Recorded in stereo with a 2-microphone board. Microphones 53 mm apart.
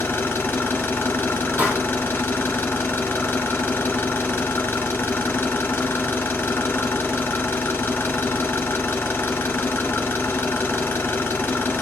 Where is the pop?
35° right (ahead or behind), 2.5 m.